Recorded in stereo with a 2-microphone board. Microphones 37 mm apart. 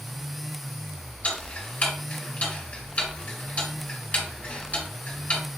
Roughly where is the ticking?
Left.